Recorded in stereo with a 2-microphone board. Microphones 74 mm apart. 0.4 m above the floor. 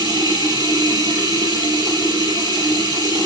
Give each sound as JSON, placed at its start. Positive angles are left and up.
{"t": 0.0, "sound": "running water", "side_deg": -75, "distance_m": 9.0}